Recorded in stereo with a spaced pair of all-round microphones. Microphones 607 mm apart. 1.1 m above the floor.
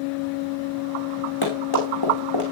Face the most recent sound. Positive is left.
turn(degrees=40)  # may be behind; listen again after turning